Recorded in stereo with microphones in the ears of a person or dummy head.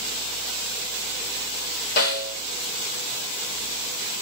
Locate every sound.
2.0 s a snare drum: 50° left (ahead or behind), 1.6 m